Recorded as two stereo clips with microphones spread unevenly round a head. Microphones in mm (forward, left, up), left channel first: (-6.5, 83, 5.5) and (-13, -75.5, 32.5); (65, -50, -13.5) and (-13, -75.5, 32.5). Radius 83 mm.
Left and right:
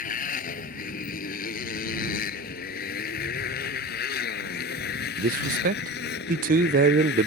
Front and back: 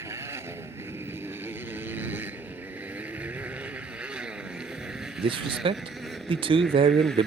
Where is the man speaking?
130° right.